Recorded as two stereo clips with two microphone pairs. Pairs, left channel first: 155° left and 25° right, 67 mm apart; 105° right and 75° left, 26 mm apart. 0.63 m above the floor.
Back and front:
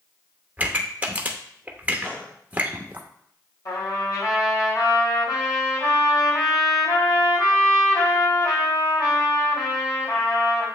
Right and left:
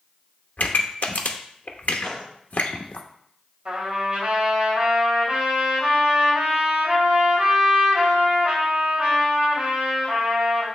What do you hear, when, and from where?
0.6 s a pop: 95° right, 0.8 m
2.0 s a gunshot: 145° right, 1.5 m
3.6 s a trumpet: 130° left, 3 m